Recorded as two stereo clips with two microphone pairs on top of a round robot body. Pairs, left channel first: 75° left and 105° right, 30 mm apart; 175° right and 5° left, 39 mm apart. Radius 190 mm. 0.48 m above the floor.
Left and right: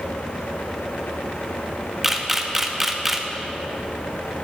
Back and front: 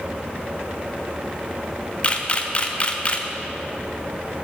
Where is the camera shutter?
175° left, 1.1 m.